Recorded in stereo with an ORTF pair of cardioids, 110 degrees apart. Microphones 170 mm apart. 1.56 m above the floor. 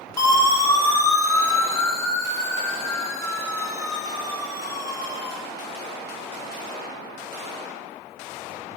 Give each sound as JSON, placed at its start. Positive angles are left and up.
{"t": 0.2, "sound": "a siren", "azimuth_deg": 20, "distance_m": 9.5}